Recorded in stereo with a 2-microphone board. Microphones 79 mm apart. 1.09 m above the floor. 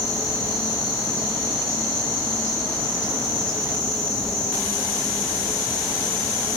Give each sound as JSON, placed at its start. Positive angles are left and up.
{"t": 0.0, "sound": "an insect", "side_deg": 35, "distance_m": 1.0}